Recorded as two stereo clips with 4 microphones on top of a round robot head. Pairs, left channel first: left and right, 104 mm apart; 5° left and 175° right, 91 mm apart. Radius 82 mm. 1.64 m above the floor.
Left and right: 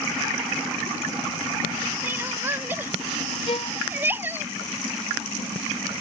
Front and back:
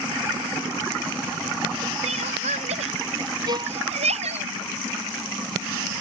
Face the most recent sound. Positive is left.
turn(degrees=145)